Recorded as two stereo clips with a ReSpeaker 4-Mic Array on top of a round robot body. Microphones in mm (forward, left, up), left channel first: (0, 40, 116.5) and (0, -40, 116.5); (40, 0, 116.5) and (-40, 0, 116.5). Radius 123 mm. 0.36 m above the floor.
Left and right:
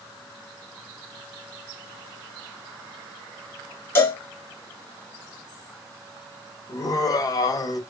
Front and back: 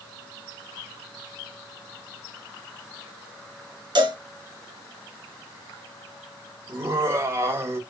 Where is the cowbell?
150° left, 3 m.